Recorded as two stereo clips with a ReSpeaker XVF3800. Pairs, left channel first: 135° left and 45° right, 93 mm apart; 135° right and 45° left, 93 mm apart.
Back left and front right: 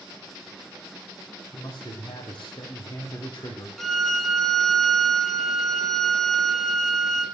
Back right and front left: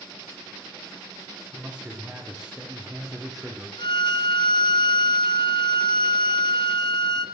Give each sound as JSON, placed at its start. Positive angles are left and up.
{"t": 1.5, "sound": "a man speaking", "azimuth_deg": 120, "distance_m": 4.5}
{"t": 3.8, "sound": "a violin", "azimuth_deg": -140, "distance_m": 0.9}